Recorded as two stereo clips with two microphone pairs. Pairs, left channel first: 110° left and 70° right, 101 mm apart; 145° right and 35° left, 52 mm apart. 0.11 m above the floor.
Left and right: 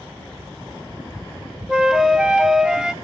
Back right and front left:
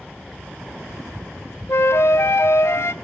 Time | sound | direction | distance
1.7 | a flute | 150° right | 0.6 m